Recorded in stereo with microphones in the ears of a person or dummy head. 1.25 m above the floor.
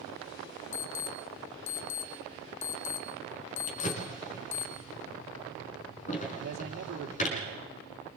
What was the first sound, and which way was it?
An alarm, 75° left (ahead or behind).